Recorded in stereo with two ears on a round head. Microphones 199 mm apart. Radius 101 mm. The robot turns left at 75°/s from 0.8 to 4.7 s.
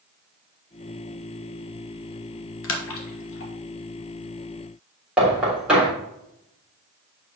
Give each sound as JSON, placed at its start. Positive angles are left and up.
{"t": 2.6, "sound": "a splash", "side_deg": 60, "distance_m": 1.4}
{"t": 5.2, "sound": "knocking", "side_deg": -5, "distance_m": 3.5}